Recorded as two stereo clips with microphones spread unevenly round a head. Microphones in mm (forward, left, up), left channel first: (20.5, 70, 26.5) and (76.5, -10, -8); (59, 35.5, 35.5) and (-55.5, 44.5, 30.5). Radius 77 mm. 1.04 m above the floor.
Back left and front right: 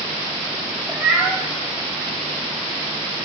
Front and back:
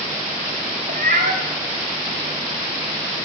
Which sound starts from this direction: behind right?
A cat meowing, at 0.9 s.